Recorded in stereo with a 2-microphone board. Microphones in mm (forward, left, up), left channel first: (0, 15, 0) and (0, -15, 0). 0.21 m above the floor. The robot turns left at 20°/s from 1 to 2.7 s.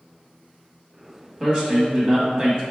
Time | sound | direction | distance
1.4 | a man speaking | 20° right (ahead or behind) | 1.0 m